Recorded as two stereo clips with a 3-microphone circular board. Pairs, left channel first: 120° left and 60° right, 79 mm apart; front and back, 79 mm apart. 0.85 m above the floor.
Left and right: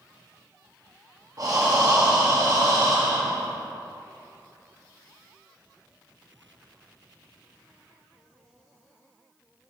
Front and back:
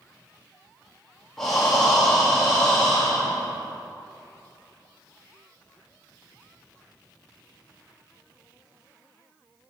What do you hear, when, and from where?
1.4 s breathing: 85° right, 1.9 m